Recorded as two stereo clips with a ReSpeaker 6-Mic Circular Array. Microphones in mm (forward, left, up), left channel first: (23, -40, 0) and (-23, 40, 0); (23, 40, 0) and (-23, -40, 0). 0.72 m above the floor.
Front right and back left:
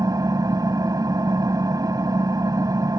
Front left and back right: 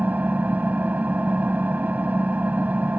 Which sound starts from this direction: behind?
An engine running, at 0.0 s.